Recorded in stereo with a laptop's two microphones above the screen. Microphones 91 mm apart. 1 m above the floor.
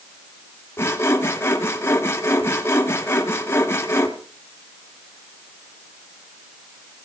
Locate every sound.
0.8 s sawing: 25° left (ahead or behind), 1.0 m